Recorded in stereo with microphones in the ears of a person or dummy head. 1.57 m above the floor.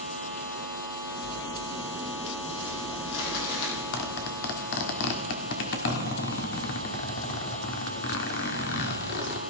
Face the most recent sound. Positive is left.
turn(degrees=55)  # may be behind; listen again after turning